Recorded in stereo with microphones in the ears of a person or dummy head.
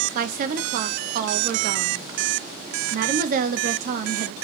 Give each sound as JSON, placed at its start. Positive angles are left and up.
{"t": 0.1, "sound": "a woman speaking", "side_deg": -55, "distance_m": 0.6}